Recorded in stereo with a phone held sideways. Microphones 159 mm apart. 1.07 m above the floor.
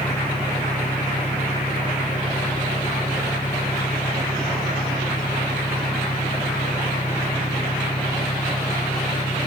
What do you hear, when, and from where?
0.0 s an engine running: 65° left (ahead or behind)